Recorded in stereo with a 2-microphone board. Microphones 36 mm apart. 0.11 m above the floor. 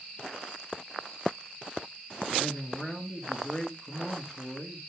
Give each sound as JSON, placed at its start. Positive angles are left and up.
{"t": 2.4, "sound": "a man speaking", "side_deg": 15, "distance_m": 1.7}